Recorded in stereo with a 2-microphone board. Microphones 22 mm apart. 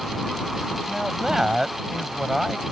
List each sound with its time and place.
0.9 s a man speaking: 25° right (ahead or behind); by 2.6 s 15° right (ahead or behind)